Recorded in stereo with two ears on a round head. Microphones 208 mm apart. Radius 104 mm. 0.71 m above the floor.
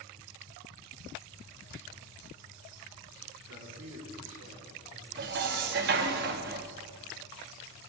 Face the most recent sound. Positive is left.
turn(degrees=-45)  # may be behind; listen again after turning